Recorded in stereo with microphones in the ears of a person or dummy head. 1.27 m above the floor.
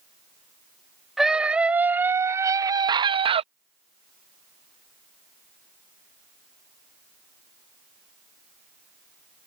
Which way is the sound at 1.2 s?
5° right (ahead or behind).